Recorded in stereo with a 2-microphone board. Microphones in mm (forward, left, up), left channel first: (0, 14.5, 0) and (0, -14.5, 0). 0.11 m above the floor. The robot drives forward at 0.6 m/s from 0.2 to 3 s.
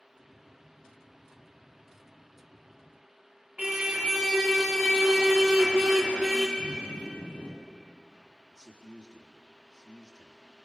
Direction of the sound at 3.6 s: 15° right (ahead or behind).